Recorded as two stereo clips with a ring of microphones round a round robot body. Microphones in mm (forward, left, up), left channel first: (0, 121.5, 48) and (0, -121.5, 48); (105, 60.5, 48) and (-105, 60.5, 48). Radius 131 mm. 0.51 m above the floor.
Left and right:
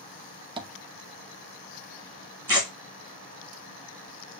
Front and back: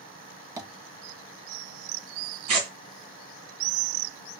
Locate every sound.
0.6 s tapping: 125° right, 0.6 m
2.5 s tearing paper: 170° left, 1.9 m